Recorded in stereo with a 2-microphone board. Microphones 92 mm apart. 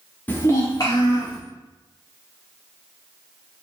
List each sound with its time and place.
0.3 s a child speaking: 20° left (ahead or behind), 0.5 m; by 1.4 s 50° left (ahead or behind), 0.9 m